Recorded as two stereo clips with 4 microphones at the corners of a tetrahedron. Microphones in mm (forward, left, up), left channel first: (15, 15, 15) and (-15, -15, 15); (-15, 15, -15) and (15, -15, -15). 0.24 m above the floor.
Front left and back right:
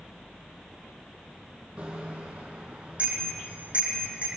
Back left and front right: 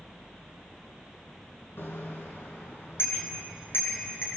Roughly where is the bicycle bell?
Behind.